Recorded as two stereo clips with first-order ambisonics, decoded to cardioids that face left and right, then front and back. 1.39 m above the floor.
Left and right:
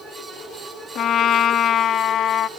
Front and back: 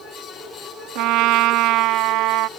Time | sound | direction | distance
0.9 | a trumpet | 145° left | ?